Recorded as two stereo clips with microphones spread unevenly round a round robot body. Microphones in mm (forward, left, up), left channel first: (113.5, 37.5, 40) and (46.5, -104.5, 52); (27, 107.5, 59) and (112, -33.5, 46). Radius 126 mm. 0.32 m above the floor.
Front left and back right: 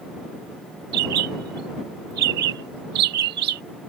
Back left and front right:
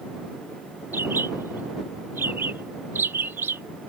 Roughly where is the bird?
Behind right.